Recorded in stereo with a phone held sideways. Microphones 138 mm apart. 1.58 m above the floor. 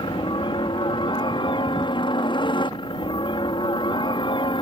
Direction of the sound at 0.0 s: 35° left (ahead or behind).